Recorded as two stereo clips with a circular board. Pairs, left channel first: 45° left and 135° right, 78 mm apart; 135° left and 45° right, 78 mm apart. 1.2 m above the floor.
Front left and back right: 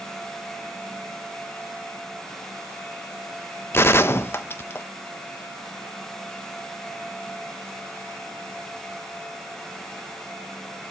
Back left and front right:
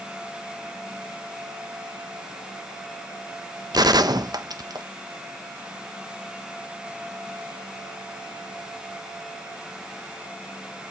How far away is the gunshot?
About 0.9 m.